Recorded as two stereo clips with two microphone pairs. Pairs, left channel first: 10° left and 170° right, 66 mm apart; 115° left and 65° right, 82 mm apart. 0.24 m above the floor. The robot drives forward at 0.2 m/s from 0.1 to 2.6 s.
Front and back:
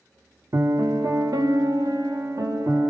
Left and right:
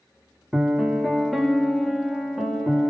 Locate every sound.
0.5 s a piano: 145° right, 0.8 m; by 2.9 s 160° right, 1.1 m